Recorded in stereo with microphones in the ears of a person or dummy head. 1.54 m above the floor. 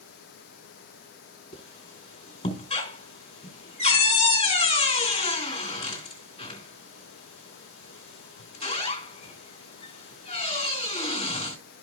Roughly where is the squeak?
Left.